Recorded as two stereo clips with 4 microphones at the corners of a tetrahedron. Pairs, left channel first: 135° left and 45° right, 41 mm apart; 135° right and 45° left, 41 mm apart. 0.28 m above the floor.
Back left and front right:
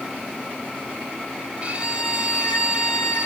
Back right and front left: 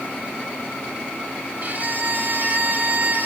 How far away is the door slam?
No door slam in this recording.